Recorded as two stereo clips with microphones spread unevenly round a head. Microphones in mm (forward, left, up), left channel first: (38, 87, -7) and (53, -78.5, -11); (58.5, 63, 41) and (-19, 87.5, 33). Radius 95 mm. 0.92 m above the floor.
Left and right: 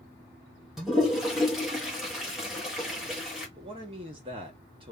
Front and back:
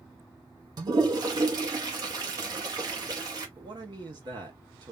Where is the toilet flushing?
170° right, 1.2 m.